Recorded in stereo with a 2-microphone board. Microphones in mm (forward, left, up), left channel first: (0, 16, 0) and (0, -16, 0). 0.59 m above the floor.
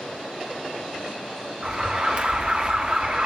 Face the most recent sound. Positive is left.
turn(degrees=-35)  # may be behind; listen again after turning